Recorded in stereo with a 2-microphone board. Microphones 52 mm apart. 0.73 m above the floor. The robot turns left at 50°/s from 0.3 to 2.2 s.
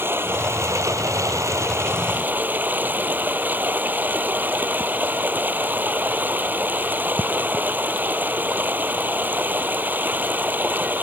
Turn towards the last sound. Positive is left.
turn(degrees=-145)